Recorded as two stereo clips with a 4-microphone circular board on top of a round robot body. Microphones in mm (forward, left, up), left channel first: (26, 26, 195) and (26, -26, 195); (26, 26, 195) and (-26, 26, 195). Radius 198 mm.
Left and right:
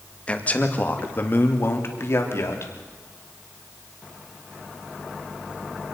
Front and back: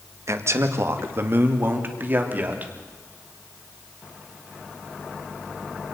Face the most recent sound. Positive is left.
turn(degrees=125)